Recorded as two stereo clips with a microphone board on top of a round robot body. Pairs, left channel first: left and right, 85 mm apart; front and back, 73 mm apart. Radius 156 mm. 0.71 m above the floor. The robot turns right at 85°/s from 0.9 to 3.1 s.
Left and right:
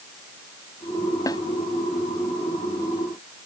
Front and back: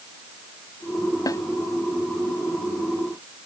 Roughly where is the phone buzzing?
I don't hear a phone buzzing.